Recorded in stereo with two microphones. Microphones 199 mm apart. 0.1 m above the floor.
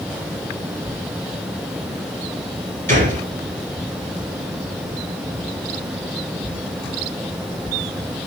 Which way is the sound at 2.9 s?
45° right (ahead or behind).